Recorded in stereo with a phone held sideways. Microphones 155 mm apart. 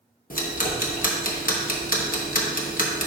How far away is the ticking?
About 1.0 m.